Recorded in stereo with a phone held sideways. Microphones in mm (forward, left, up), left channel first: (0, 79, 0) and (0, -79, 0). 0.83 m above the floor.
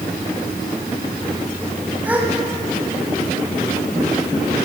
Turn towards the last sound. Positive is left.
turn(degrees=-10)  # may be behind; listen again after turning